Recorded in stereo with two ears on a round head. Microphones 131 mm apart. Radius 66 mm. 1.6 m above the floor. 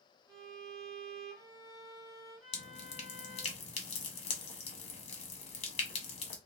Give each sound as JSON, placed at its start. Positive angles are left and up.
{"t": 0.3, "sound": "a violin", "side_deg": -25, "distance_m": 2.0}
{"t": 2.5, "sound": "dripping", "side_deg": 40, "distance_m": 1.0}